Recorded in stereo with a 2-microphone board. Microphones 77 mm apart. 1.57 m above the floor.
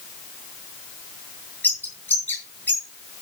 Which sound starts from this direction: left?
A bird, at 1.6 s.